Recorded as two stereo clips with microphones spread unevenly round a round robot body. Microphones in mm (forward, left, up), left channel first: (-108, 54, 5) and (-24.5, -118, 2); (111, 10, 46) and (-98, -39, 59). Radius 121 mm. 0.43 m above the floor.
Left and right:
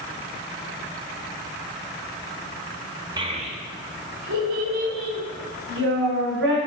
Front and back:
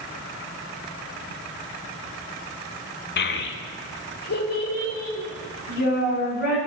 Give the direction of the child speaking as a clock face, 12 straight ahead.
12 o'clock.